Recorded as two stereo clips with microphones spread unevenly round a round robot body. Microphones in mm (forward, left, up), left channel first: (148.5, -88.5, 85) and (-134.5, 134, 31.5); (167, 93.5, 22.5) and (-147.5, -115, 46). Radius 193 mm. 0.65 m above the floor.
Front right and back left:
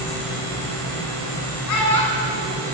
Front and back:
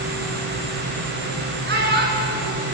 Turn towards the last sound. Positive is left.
turn(degrees=-80)